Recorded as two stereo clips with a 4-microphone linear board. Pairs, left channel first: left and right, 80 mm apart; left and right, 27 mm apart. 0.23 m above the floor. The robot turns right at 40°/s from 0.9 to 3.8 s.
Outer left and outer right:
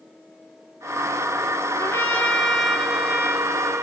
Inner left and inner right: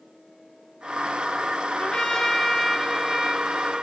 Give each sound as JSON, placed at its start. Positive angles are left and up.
{"t": 1.8, "sound": "a trumpet", "azimuth_deg": 140, "distance_m": 1.7}